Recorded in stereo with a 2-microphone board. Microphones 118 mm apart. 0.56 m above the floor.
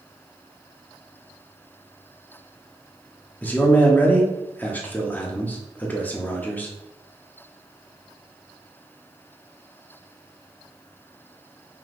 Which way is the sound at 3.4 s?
15° left (ahead or behind).